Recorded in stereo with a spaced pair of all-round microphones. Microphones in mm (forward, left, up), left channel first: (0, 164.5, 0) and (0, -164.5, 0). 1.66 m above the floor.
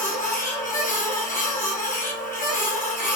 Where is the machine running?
25° left (ahead or behind), 0.8 m.